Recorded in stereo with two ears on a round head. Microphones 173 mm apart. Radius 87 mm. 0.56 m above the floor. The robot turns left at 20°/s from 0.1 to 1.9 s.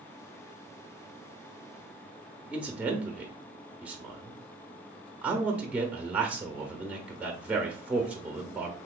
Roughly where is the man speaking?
Centre.